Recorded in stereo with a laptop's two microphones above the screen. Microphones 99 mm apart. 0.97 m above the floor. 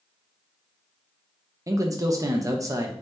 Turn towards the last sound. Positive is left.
turn(degrees=-30)  # may be behind; listen again after turning